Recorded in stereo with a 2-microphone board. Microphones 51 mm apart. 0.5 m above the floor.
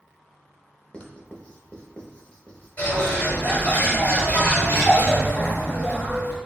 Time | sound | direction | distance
0.9 | writing | 25° left (ahead or behind) | 0.7 m
2.8 | a bird | 35° left (ahead or behind) | 1.3 m